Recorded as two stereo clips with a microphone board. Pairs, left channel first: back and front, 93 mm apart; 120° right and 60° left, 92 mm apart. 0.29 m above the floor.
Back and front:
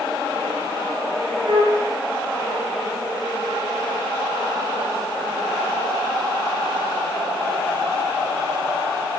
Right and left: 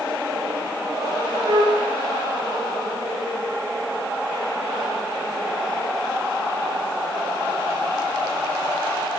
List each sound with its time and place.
1.5 s a flute: 35° left, 7.5 m